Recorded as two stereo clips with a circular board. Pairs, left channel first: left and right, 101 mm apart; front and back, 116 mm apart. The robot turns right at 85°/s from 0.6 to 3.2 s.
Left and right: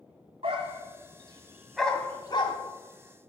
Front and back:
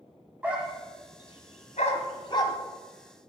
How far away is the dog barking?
About 1.6 m.